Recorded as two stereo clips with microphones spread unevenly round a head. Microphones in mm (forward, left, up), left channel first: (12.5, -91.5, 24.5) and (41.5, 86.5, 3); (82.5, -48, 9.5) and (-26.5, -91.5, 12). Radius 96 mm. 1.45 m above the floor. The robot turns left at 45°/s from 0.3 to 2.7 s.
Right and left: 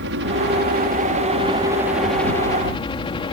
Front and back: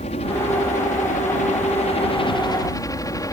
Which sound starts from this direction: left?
A helicopter, at 0.0 s.